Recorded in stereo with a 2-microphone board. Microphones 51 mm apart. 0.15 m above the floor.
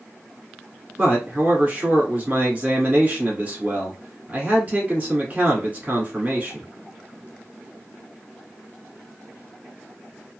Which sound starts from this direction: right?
A man speaking, at 1.0 s.